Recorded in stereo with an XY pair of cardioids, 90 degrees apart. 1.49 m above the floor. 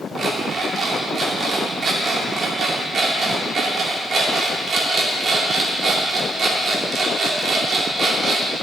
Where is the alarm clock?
55° right, 2.5 m.